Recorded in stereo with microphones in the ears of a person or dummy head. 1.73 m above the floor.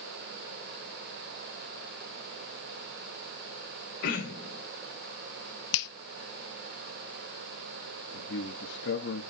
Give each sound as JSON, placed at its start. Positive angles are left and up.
{"t": 4.0, "sound": "throat clearing", "side_deg": 50, "distance_m": 2.5}
{"t": 5.7, "sound": "a finger snap", "side_deg": 70, "distance_m": 0.7}
{"t": 8.1, "sound": "a man speaking", "side_deg": 75, "distance_m": 1.4}